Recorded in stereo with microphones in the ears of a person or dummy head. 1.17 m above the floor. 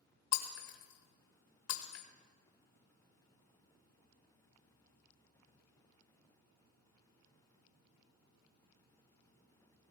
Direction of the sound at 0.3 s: 70° left (ahead or behind).